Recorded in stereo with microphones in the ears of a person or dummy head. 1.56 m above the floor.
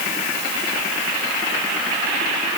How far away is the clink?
I don't hear a clink.